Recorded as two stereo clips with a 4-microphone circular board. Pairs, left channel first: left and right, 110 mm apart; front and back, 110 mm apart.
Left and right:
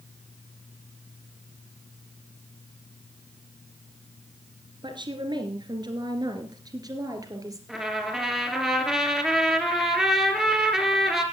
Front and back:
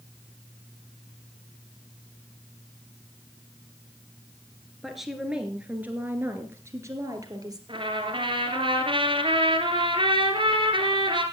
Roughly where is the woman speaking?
Right.